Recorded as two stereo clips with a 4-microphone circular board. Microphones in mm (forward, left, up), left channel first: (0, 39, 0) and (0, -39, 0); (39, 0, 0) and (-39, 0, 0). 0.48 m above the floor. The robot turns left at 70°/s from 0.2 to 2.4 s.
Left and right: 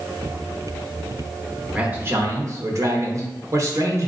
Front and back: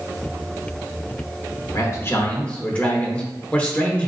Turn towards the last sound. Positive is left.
turn(degrees=-70)